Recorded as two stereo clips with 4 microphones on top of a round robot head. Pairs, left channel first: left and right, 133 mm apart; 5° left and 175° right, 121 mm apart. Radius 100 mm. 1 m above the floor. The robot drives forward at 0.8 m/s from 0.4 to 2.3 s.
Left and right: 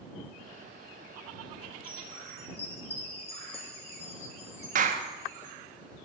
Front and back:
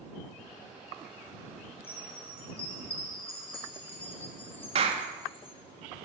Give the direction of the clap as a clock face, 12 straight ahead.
4 o'clock.